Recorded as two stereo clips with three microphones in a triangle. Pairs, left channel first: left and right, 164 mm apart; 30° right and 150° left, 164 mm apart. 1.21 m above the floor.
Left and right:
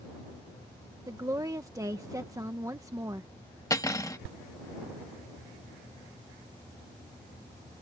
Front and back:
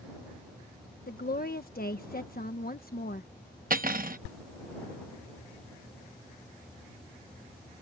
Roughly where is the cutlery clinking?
Behind left.